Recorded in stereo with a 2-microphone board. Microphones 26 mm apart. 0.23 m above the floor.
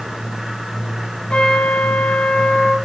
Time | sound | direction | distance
1.3 | a trumpet | 40° left (ahead or behind) | 6.5 m